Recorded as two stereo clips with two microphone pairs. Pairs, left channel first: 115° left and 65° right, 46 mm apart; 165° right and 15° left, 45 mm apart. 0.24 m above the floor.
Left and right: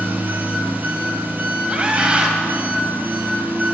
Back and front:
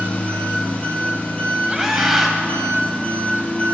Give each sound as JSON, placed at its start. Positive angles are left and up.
{"t": 0.0, "sound": "an engine running", "azimuth_deg": -110, "distance_m": 1.4}
{"t": 1.7, "sound": "a scream", "azimuth_deg": -60, "distance_m": 1.3}